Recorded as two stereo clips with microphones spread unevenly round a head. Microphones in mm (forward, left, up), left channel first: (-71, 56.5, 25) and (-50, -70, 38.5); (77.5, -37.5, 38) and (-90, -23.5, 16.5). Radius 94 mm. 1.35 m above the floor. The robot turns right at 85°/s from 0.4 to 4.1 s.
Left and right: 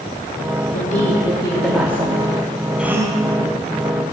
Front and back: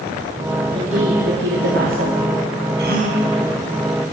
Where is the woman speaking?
105° left, 3.5 m; by 2.2 s 130° right, 3.5 m.